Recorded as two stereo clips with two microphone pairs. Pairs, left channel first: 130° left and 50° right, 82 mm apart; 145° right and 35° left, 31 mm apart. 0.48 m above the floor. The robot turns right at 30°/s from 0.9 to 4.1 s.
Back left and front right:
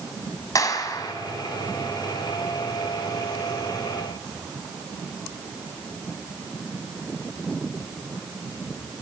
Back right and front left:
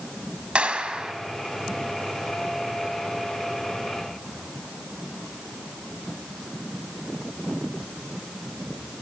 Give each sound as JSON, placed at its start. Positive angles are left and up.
{"t": 0.6, "sound": "a clap", "azimuth_deg": 85, "distance_m": 2.5}